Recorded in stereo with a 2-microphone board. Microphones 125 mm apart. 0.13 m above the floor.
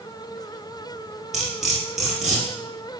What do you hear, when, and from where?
1.3 s cutlery clinking: 5° right (ahead or behind), 1.7 m